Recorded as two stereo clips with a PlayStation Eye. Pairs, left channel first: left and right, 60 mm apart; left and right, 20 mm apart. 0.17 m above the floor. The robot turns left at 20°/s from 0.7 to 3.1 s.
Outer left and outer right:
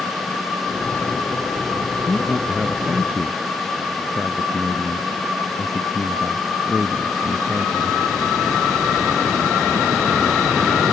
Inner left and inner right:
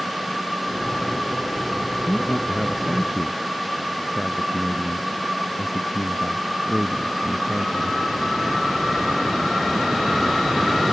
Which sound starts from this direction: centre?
A man speaking, at 2.1 s.